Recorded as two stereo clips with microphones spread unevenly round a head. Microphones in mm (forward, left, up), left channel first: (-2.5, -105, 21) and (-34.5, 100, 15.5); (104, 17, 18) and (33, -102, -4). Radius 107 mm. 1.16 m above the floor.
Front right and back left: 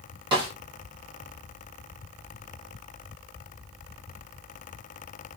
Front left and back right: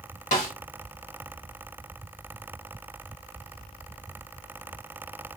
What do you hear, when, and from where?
0.3 s a snare drum: 30° left, 1.3 m